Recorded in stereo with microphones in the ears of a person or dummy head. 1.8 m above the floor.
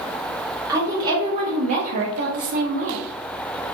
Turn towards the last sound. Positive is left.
turn(degrees=-35)  # may be behind; listen again after turning